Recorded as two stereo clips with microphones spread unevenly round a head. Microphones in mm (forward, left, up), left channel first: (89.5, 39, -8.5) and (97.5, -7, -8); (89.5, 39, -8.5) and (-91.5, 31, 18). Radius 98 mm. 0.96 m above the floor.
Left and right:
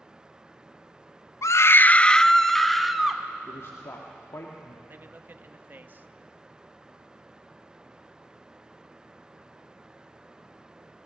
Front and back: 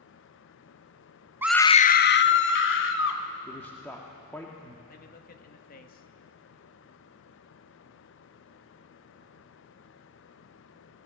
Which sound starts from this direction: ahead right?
A man speaking, at 4.9 s.